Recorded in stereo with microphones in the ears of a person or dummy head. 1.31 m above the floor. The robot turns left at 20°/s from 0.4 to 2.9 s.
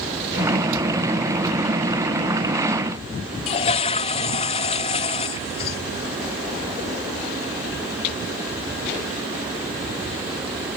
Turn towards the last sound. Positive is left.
turn(degrees=35)  # may be behind; listen again after turning